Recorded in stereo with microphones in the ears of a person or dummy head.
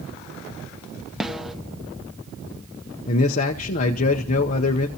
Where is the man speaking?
35° left (ahead or behind), 0.8 m.